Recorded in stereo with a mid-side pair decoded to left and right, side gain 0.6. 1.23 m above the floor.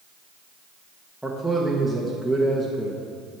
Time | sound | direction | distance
1.2 | a man speaking | 5° right | 1.3 m